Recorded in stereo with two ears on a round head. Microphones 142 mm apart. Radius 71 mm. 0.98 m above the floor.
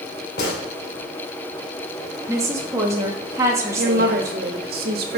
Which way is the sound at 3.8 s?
65° right (ahead or behind).